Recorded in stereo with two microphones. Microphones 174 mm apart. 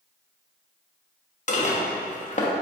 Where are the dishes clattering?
45° left (ahead or behind), 0.5 m.